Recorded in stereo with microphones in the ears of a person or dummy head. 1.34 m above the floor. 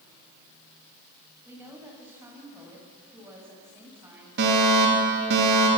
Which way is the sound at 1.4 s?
15° right (ahead or behind).